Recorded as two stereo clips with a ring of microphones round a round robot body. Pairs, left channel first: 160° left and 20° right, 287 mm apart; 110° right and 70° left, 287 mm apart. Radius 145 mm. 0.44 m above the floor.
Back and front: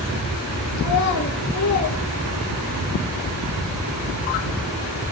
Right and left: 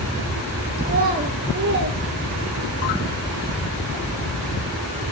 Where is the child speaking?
125° left, 6.5 m; by 2.9 s 120° left, 6.5 m.